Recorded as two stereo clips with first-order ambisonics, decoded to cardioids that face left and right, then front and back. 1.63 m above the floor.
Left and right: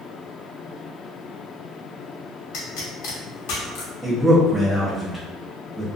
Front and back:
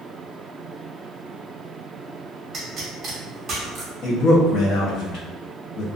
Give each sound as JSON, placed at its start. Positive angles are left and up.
{"t": 2.5, "sound": "a pop", "azimuth_deg": 120, "distance_m": 0.8}
{"t": 4.0, "sound": "a man speaking", "azimuth_deg": 0, "distance_m": 0.7}